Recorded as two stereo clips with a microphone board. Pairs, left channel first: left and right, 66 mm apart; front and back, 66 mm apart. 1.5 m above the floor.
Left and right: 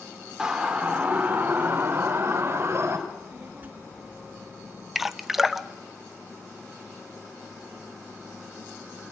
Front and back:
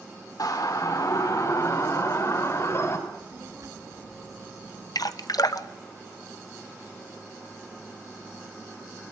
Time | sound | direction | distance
0.4 | a siren | 10° right | 3.5 m
3.1 | a child speaking | 150° right | 1.7 m
5.0 | dripping | 5° right | 1.0 m